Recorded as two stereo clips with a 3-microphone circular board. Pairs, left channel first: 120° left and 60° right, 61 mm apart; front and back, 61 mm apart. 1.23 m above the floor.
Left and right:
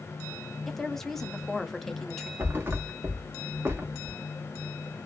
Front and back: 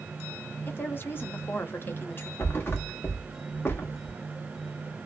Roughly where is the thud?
Ahead right.